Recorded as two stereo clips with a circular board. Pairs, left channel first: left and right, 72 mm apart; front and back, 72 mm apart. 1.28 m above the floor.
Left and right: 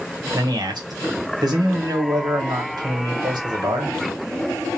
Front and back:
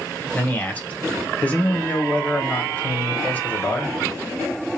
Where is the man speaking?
70° right, 1.1 m.